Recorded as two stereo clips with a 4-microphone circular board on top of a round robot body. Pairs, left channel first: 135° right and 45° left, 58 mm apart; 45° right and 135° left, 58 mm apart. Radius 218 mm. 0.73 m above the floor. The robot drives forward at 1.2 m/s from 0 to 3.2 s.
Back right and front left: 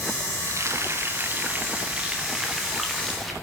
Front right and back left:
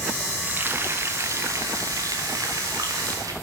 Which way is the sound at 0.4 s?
75° left.